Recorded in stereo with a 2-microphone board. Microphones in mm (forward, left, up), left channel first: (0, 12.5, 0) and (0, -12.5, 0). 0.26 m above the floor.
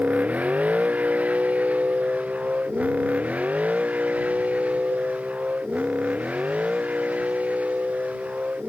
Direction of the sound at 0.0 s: 85° right.